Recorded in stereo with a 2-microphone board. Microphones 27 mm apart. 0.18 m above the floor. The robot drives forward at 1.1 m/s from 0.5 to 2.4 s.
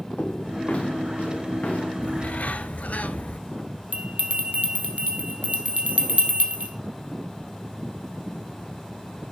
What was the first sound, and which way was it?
Footsteps, 55° left (ahead or behind).